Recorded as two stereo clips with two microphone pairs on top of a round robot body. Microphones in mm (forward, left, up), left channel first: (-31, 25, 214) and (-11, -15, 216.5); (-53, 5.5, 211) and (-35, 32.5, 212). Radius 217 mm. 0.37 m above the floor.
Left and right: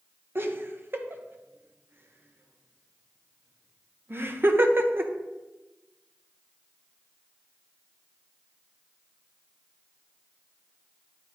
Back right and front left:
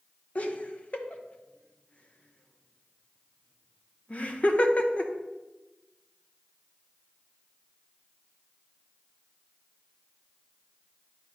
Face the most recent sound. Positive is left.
turn(degrees=-90)